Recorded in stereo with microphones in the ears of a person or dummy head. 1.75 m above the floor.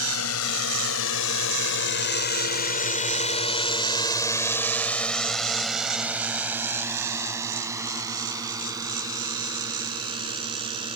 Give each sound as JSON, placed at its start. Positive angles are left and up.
{"t": 0.0, "sound": "a drone", "side_deg": 85}